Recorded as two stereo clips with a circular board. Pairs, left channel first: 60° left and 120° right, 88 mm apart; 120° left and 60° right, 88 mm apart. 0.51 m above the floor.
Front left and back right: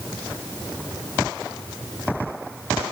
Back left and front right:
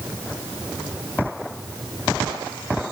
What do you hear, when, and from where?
Only background noise.